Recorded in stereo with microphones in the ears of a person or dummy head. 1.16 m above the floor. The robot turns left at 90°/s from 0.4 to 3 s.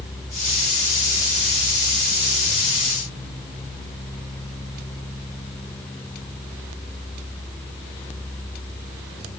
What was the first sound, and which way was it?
Only background noise.